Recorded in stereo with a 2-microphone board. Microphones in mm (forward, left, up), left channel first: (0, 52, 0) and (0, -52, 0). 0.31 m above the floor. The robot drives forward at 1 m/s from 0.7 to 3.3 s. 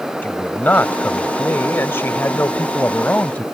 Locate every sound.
0.2 s a man speaking: 15° left (ahead or behind)